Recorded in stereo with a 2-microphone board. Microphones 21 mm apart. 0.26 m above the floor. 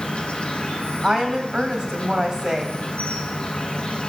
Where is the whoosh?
No whoosh in this recording.